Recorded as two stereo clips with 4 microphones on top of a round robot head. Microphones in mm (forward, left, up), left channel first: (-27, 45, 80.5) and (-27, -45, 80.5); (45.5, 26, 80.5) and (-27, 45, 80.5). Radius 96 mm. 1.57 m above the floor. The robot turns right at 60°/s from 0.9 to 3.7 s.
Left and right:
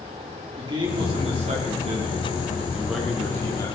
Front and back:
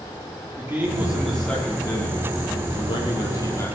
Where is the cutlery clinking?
I don't hear cutlery clinking.